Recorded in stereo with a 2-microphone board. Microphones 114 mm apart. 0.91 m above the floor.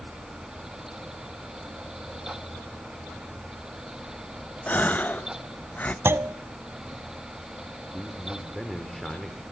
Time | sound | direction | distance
4.7 | a gasp | 15° left (ahead or behind) | 0.6 m
6.0 | a clunk | 20° right (ahead or behind) | 0.6 m
7.9 | a man speaking | centre (ahead or behind) | 2 m